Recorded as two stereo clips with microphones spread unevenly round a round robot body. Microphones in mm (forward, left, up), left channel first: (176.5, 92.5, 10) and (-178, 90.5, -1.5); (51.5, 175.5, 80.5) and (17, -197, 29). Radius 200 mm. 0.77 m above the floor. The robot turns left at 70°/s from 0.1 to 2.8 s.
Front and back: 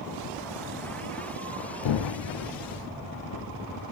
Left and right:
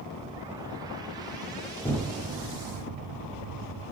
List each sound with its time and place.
1.8 s an explosion: 5° left, 0.5 m; by 3.9 s 60° right, 0.5 m